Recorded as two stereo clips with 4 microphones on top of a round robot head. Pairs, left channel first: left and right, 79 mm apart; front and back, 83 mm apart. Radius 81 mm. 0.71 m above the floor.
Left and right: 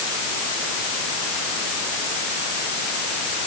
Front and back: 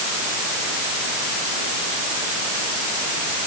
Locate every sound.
Only background noise.